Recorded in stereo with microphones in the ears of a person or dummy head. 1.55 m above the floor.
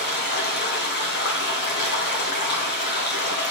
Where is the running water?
55° left (ahead or behind), 1.4 m.